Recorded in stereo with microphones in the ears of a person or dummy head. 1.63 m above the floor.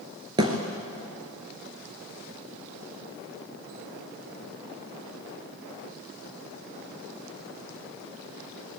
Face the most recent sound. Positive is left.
turn(degrees=-25)  # may be behind; listen again after turning